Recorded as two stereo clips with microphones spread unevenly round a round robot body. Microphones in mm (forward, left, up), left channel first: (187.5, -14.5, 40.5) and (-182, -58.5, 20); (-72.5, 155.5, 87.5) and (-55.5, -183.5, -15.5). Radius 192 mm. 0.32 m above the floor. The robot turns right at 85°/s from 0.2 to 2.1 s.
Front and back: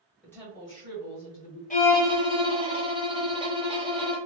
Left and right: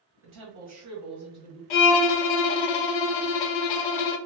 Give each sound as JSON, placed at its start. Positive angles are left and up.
{"t": 0.2, "sound": "a woman speaking", "azimuth_deg": -85, "distance_m": 1.6}
{"t": 1.7, "sound": "a violin", "azimuth_deg": 80, "distance_m": 0.5}